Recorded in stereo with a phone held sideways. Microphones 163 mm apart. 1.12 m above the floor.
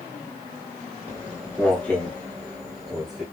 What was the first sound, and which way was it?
Footsteps, 15° left (ahead or behind).